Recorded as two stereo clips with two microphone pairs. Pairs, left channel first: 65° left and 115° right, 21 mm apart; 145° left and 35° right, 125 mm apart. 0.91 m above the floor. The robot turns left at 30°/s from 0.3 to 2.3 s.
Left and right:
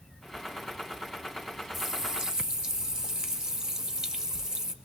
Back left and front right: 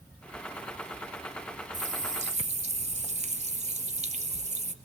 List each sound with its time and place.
1.7 s a running tap: 40° right, 0.5 m; by 4.7 s 55° right, 0.5 m